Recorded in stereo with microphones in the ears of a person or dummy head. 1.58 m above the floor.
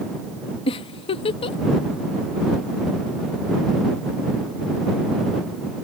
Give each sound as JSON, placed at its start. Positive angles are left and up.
{"t": 0.7, "sound": "a giggle", "side_deg": 25}